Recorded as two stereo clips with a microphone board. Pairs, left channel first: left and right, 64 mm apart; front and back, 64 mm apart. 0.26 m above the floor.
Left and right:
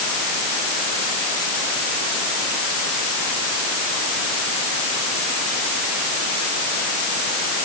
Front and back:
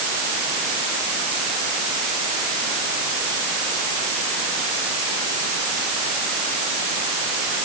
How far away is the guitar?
I don't hear a guitar.